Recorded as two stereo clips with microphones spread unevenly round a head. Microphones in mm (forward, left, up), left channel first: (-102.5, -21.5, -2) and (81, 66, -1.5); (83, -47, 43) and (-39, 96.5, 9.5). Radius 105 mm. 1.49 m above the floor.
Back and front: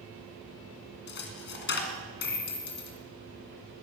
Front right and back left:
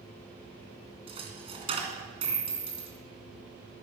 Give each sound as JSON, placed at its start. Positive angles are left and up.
{"t": 1.1, "sound": "a dropped coin", "azimuth_deg": -160, "distance_m": 2.0}